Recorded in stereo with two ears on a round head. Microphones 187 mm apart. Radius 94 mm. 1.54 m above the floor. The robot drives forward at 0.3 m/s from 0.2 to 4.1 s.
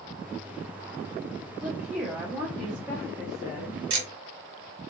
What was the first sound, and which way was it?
A woman speaking, 5° right (ahead or behind).